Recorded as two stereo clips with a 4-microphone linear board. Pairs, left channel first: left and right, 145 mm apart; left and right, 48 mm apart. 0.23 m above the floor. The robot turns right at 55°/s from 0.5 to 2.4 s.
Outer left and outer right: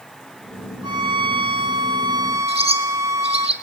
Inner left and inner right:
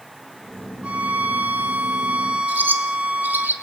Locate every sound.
0.8 s a violin: 125° right, 1.2 m; by 3.5 s 40° right, 1.2 m
2.5 s a bird: 45° right (ahead or behind), 1.4 m